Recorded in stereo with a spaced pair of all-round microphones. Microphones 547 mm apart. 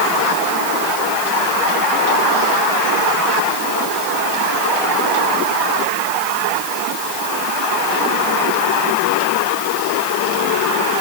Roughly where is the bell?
No bell in this recording.